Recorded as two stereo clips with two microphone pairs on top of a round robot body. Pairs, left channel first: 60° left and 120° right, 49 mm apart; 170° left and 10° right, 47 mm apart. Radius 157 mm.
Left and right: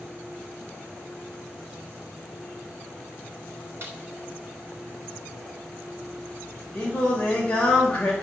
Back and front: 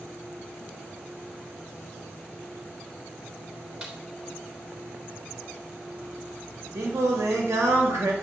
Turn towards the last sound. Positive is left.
turn(degrees=-10)